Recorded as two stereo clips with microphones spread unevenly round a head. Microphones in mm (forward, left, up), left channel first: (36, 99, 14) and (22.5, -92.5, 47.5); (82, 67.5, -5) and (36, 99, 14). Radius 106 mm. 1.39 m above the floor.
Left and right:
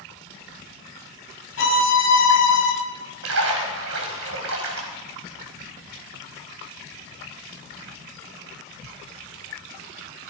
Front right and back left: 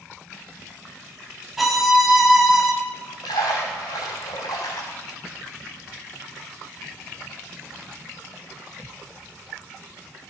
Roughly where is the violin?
Ahead left.